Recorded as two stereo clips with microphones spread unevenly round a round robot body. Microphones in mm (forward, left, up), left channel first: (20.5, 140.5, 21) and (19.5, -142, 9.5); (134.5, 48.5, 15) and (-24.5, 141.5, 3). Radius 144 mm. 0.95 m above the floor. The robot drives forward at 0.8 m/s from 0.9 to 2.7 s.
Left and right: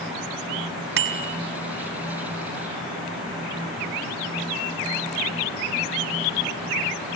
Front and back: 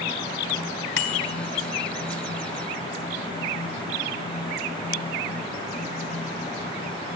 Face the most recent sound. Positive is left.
turn(degrees=-75)